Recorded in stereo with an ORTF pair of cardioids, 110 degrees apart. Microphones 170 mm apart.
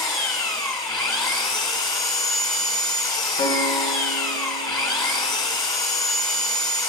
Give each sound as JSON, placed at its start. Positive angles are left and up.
{"t": 0.0, "sound": "an engine running", "azimuth_deg": 20, "distance_m": 1.5}
{"t": 3.4, "sound": "a piano", "azimuth_deg": 40, "distance_m": 2.0}